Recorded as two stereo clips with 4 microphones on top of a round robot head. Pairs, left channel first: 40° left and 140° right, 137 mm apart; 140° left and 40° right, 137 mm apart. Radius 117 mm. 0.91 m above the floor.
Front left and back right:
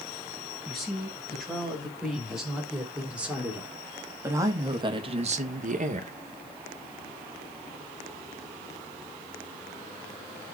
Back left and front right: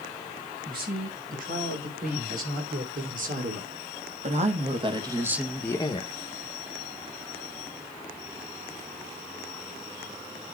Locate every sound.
0.7 s a woman speaking: 50° right, 6 m; by 6.1 s 175° right, 1.2 m